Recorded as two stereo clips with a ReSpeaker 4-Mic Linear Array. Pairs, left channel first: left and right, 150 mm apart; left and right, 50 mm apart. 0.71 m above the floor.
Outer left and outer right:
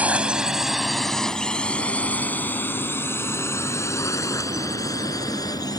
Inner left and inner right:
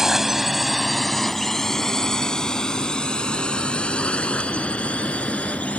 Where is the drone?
10° right (ahead or behind); by 5.8 s 25° left (ahead or behind).